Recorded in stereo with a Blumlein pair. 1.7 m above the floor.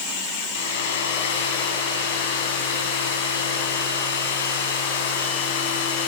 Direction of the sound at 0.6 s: 55° left.